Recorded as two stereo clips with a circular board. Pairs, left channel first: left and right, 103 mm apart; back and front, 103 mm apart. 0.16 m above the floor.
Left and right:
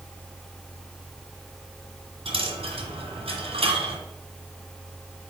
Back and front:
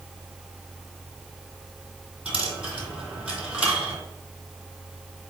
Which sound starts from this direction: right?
A dropped coin, at 2.2 s.